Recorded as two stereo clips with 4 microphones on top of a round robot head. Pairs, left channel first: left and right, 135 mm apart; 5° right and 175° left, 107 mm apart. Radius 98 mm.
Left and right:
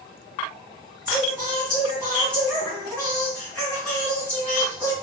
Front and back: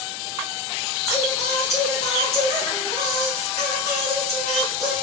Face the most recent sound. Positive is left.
turn(degrees=10)